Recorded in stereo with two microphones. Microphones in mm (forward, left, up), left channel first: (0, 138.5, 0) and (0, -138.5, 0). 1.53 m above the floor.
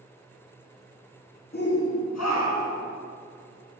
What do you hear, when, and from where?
1.5 s a shout: 35° left (ahead or behind), 0.5 m; by 2.8 s 70° left (ahead or behind), 1.0 m